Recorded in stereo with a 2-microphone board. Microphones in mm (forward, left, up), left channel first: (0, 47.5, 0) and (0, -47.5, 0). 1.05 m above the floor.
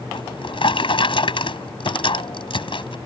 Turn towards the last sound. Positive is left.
turn(degrees=65)  # may be behind; listen again after turning